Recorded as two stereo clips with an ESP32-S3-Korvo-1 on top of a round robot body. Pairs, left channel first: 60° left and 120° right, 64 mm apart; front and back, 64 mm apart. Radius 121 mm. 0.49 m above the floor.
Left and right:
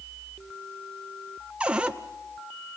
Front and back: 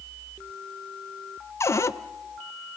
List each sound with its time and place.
1.6 s a cupboard door: 45° right, 0.8 m